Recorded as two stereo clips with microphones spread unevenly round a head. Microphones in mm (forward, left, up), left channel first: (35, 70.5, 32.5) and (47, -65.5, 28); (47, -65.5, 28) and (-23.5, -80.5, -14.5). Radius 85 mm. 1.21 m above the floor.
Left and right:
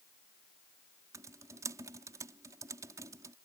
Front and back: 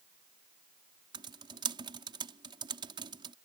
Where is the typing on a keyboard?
160° right.